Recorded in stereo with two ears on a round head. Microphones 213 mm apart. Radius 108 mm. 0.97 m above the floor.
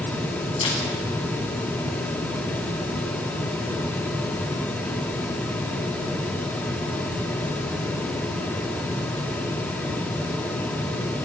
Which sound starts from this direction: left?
A camera shutter, at 0.6 s.